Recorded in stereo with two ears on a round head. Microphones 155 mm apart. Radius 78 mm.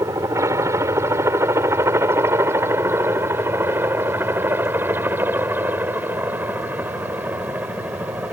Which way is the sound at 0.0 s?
15° right (ahead or behind).